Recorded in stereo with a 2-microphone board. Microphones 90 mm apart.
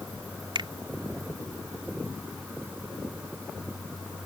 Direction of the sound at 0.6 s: 65° right (ahead or behind).